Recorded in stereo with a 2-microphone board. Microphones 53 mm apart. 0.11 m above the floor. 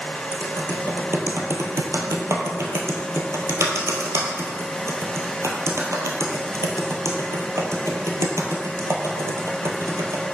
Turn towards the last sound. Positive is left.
turn(degrees=-65)  # may be behind; listen again after turning